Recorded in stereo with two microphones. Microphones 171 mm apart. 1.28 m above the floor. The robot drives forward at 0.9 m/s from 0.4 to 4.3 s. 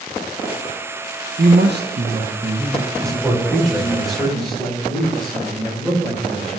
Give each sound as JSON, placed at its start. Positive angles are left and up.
{"t": 1.4, "sound": "a man speaking", "side_deg": -70, "distance_m": 0.7}
{"t": 3.0, "sound": "a man speaking", "side_deg": 0, "distance_m": 3.5}